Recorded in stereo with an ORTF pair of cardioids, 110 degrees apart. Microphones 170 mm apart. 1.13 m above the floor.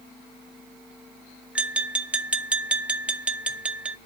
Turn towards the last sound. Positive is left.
turn(degrees=-5)